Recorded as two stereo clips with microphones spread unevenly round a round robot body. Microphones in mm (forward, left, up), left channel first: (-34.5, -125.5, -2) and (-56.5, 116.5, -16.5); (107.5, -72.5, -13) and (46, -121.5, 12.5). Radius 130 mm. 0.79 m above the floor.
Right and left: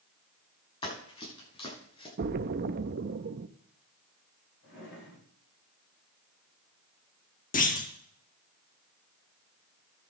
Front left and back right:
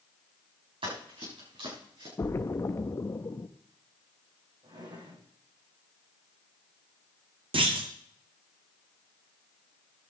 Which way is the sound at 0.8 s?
155° right.